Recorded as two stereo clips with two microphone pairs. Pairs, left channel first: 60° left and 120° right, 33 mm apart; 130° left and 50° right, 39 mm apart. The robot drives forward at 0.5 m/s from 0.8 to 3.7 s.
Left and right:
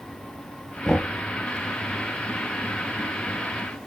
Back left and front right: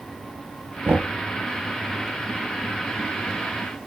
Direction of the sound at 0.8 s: 5° right.